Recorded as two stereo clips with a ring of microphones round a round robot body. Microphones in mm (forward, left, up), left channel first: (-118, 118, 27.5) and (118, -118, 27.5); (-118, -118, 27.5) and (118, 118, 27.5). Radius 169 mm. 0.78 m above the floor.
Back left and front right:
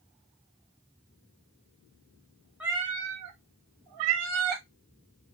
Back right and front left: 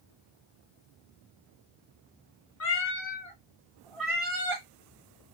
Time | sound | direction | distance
2.6 | a cat meowing | 130° right | 0.5 m